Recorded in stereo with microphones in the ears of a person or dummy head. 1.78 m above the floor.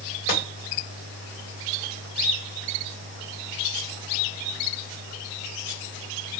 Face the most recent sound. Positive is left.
turn(degrees=50)  # may be behind; listen again after turning